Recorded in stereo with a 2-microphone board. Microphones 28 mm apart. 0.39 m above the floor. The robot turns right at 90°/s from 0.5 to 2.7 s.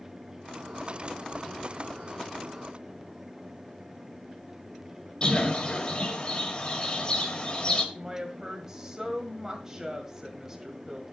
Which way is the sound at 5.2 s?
35° left (ahead or behind).